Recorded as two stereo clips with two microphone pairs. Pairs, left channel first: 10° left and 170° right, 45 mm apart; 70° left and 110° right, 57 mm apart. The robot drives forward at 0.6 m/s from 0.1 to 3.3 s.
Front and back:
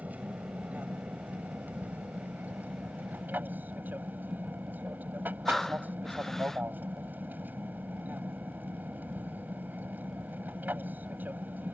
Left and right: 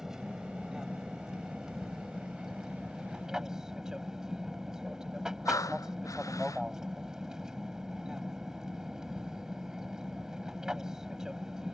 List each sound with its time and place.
0.0 s an aircraft: 175° left; by 11.7 s straight behind
5.5 s breathing: 90° left